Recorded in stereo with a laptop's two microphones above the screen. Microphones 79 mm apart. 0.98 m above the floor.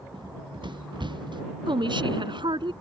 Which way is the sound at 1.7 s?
90° right.